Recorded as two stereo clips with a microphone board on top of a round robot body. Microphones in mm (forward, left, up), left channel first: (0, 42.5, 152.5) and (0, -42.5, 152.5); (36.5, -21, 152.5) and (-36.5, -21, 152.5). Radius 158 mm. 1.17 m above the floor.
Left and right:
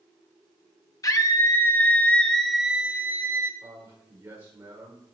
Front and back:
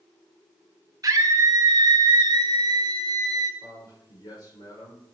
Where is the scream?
135° left, 1.5 m; by 3.5 s 145° right, 1.3 m.